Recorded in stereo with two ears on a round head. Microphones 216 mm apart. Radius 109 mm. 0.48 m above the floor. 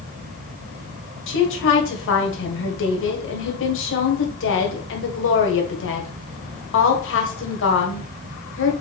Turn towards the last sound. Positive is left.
turn(degrees=60)  # may be behind; listen again after turning